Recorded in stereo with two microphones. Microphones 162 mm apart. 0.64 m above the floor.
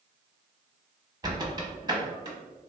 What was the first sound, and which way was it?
A squeak, 30° right (ahead or behind).